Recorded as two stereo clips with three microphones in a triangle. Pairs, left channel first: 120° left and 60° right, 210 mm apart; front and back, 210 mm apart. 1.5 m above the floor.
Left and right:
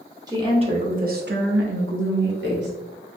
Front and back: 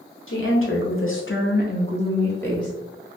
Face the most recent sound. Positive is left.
turn(degrees=-85)